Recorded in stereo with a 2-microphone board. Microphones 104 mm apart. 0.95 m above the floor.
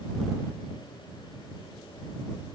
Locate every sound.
Only background noise.